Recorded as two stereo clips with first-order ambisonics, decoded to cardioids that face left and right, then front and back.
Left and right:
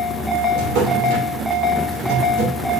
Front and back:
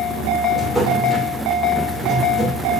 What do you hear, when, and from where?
0.5 s a drawer: 80° right, 2.5 m